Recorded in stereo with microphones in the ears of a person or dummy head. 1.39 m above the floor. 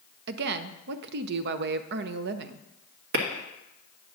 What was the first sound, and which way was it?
A woman speaking, 55° right (ahead or behind).